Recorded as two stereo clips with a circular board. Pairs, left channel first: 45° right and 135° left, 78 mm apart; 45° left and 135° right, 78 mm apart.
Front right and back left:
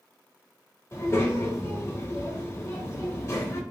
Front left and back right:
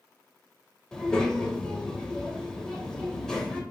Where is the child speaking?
30° right, 0.8 m.